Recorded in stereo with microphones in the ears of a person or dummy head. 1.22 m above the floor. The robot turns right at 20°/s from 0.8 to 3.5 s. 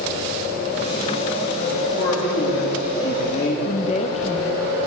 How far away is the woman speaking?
About 0.9 m.